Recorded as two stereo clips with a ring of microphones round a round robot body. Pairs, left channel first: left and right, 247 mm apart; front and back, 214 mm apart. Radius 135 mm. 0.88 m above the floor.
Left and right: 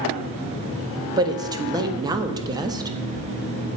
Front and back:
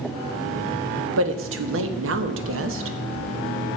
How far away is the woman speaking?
About 1.3 m.